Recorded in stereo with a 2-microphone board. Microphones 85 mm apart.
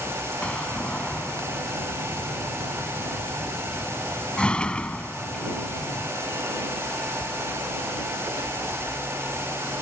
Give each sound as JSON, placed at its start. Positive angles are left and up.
{"t": 0.4, "sound": "a door slam", "side_deg": 10}